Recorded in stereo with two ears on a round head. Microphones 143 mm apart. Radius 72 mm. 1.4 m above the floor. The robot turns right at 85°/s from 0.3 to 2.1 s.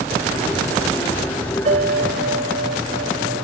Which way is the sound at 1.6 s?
135° right.